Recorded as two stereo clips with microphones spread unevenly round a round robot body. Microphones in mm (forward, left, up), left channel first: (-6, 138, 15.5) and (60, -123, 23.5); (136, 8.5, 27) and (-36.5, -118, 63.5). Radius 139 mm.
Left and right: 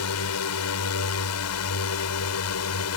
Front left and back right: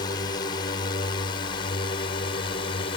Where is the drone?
100° left; by 3.0 s 95° left.